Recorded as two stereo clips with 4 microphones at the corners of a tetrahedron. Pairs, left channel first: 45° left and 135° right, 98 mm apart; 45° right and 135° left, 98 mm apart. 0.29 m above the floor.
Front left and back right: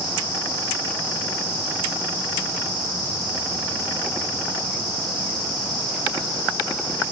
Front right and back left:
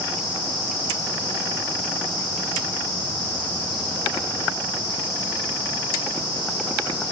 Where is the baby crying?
I don't hear a baby crying.